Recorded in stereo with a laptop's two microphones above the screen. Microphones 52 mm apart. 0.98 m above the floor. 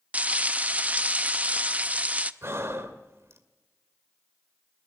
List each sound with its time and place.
0.1 s frying: 30° right (ahead or behind), 0.5 m
2.4 s breathing: 60° right (ahead or behind), 2 m